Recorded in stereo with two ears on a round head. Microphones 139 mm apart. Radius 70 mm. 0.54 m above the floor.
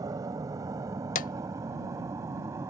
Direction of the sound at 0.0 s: 25° right (ahead or behind).